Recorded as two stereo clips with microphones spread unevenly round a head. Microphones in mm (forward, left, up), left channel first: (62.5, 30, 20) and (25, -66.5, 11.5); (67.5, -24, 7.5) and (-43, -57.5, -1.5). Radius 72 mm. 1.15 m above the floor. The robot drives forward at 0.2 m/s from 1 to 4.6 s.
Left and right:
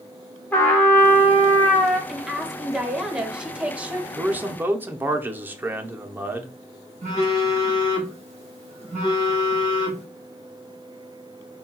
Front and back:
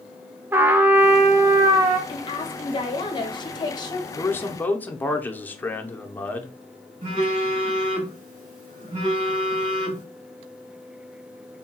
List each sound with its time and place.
0.5 s a trumpet: 130° left, 0.5 m; by 2.0 s 150° left, 0.6 m
2.1 s a woman speaking: 25° right, 1.2 m; by 4.1 s 40° right, 0.9 m
4.2 s a man speaking: 50° right, 0.7 m; by 6.5 s 55° right, 0.7 m
7.0 s a phone buzzing: 150° right, 1.4 m